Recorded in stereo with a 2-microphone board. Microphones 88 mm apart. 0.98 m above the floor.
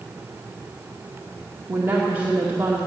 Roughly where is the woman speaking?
Right.